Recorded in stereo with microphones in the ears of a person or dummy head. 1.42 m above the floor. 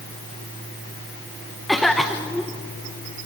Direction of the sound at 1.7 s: Centre (ahead or behind).